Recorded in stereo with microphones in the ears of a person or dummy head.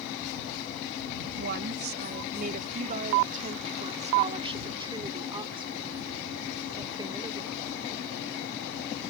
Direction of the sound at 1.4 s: 50° right (ahead or behind).